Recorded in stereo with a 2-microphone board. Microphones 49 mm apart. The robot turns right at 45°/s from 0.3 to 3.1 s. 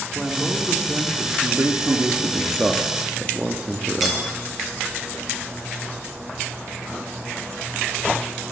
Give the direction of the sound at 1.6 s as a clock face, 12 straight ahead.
3 o'clock.